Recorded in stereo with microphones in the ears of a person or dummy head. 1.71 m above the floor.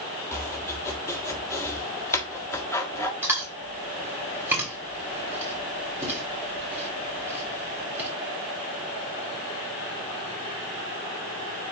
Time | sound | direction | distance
0.3 | chopping | 15° left (ahead or behind) | 1.5 m
3.2 | chewing | 10° right (ahead or behind) | 3 m